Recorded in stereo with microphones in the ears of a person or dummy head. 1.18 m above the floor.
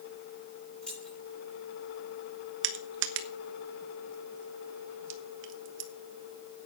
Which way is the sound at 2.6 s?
70° right (ahead or behind).